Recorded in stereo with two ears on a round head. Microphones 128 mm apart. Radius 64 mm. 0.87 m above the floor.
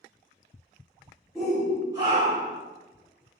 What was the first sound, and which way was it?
A shout, centre (ahead or behind).